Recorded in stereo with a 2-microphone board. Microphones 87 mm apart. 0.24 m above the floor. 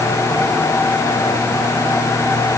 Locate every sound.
Only background noise.